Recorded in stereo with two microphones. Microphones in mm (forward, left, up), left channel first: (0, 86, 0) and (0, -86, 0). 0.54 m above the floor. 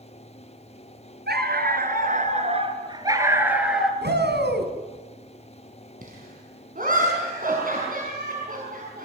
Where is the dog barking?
70° right (ahead or behind), 3.5 m; by 3.9 s centre (ahead or behind), 3.5 m.